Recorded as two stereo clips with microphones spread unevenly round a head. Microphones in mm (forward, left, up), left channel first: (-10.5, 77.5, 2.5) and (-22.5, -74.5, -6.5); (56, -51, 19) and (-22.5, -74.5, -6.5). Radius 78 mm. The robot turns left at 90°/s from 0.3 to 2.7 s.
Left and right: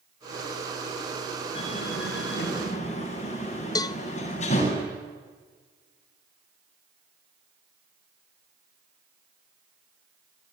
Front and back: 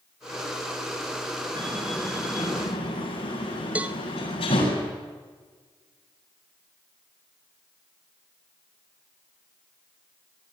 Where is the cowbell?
100° left, 0.7 m.